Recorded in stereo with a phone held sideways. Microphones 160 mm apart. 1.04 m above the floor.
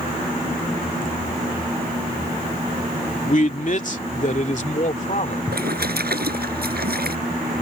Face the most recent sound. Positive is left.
turn(degrees=-90)